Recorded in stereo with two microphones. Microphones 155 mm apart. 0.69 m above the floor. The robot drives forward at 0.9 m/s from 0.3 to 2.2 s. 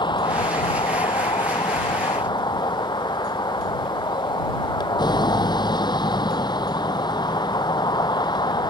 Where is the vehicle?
30° left (ahead or behind); by 8.7 s 25° left (ahead or behind).